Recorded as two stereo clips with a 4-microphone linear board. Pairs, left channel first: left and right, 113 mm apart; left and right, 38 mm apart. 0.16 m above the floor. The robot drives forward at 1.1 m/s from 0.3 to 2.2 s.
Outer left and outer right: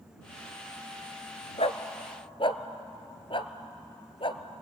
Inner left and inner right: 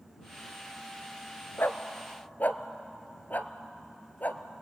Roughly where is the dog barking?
Left.